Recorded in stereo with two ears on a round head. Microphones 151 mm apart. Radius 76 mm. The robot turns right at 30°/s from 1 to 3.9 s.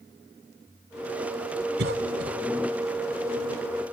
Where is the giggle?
I don't hear a giggle.